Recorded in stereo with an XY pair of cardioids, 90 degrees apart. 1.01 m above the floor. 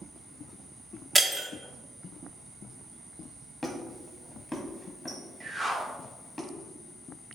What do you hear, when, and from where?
1.1 s breaking glass: 25° right, 0.9 m
3.6 s a squeak: 10° left, 1.1 m
5.4 s a whoosh: 30° right, 1.8 m